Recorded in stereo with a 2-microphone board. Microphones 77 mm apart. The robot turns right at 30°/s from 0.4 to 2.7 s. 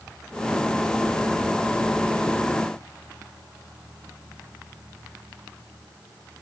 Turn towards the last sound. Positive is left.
No sound to turn to.